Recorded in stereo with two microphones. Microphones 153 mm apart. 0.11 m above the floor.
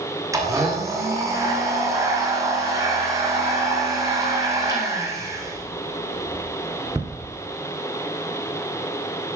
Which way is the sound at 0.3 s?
20° right (ahead or behind).